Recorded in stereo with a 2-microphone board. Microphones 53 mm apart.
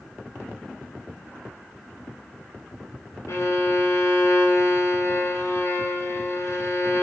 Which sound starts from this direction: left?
A violin, at 3.3 s.